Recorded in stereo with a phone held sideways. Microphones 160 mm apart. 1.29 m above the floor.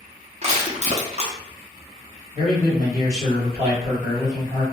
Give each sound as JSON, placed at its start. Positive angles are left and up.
{"t": 0.4, "sound": "crushing", "side_deg": -45, "distance_m": 0.7}
{"t": 2.3, "sound": "a man speaking", "side_deg": -45, "distance_m": 1.6}